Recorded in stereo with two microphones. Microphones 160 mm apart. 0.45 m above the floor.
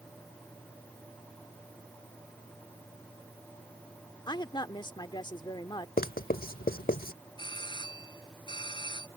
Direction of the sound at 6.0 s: 65° left (ahead or behind).